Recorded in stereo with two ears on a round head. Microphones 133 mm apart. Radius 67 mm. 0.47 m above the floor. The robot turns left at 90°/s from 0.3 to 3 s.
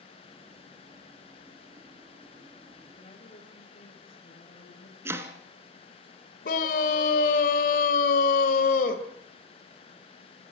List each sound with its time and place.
3.0 s a woman speaking: 35° left (ahead or behind), 6.5 m; by 5.0 s 40° left (ahead or behind), 6.5 m
5.0 s chopping: 20° right (ahead or behind), 1.6 m
6.5 s a scream: 60° left (ahead or behind), 1.7 m